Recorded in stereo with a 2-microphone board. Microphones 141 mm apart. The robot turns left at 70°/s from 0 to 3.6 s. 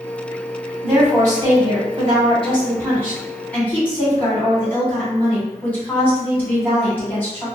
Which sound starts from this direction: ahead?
A woman speaking, at 0.8 s.